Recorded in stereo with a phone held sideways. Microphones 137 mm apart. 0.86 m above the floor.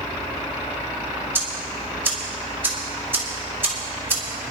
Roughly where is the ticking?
Centre.